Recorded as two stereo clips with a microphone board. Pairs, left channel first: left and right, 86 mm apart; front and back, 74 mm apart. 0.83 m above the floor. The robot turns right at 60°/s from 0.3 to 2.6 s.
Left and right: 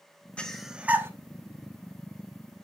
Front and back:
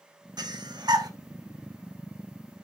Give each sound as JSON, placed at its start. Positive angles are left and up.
{"t": 0.4, "sound": "breathing", "azimuth_deg": 165, "distance_m": 1.0}